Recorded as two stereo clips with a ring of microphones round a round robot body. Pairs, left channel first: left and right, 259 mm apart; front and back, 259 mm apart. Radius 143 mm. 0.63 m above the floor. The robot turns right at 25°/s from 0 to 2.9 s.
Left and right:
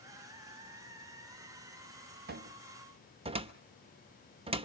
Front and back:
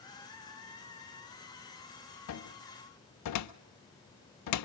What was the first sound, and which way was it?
A cupboard door, 35° right.